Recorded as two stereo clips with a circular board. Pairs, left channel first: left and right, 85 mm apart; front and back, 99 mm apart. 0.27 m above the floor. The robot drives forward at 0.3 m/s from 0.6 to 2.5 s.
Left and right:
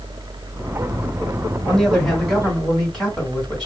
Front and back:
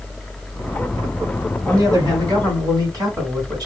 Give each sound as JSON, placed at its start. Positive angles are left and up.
{"t": 1.6, "sound": "a man speaking", "azimuth_deg": 165, "distance_m": 1.8}